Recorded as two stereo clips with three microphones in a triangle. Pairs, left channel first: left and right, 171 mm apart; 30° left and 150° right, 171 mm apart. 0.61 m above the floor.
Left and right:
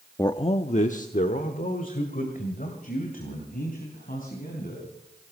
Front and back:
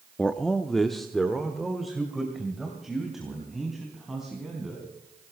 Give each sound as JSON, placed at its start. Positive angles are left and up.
{"t": 0.2, "sound": "a man speaking", "azimuth_deg": 100, "distance_m": 0.5}